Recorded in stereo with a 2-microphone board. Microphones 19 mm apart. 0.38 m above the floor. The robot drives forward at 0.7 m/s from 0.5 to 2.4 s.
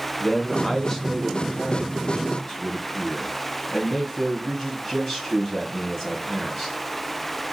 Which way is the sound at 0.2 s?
15° left (ahead or behind).